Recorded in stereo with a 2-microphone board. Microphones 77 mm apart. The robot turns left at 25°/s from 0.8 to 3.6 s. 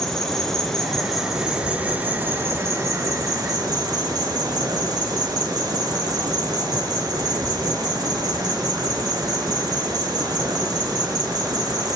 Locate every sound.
0.0 s an insect: 10° left, 1.9 m; by 12.0 s 60° right, 1.9 m